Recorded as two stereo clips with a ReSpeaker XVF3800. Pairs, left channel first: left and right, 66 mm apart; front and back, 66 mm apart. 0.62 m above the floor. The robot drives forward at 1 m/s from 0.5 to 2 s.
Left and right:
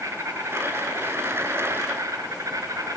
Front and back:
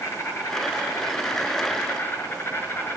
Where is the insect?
40° right, 6 m; by 3.0 s 55° right, 5 m.